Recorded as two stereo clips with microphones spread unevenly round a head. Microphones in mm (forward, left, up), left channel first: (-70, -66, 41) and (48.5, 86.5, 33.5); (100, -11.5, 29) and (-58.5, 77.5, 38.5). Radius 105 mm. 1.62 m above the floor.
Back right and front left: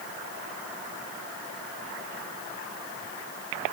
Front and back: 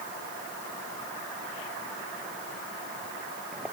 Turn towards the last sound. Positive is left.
No sound to turn to.